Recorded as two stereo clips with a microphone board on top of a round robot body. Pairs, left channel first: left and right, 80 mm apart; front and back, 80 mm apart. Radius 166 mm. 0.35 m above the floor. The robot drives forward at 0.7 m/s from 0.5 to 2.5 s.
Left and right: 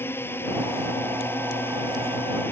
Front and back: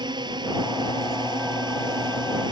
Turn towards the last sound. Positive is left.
turn(degrees=155)